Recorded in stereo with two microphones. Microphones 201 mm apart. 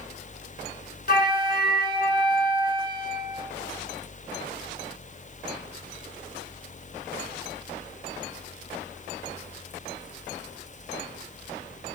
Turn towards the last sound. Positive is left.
turn(degrees=50)  # may be behind; listen again after turning